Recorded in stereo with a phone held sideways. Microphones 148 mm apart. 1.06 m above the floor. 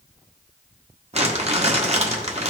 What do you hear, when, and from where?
1.1 s crumpling: 45° right (ahead or behind), 1.4 m